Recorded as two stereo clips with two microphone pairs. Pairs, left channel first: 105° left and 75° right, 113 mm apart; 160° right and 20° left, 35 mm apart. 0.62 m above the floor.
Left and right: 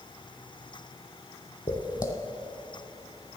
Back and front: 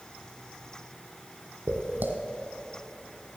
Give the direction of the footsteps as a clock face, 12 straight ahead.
10 o'clock.